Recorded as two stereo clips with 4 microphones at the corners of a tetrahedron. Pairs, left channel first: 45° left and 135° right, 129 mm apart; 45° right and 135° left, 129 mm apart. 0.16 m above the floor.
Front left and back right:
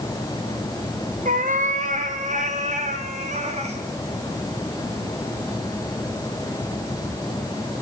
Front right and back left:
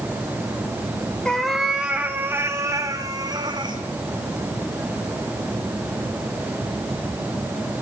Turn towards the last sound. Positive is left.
turn(degrees=-170)